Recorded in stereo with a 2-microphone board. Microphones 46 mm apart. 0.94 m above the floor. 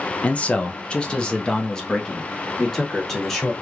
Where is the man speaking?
30° left (ahead or behind), 0.5 m; by 3.5 s 10° left (ahead or behind), 1.9 m.